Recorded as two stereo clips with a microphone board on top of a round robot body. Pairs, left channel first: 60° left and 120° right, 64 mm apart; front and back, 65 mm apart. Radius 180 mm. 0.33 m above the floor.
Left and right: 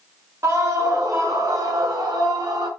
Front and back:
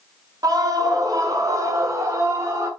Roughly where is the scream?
Behind.